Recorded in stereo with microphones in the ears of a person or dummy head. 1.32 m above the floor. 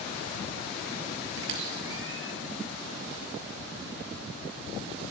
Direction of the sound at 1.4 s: 75° right (ahead or behind).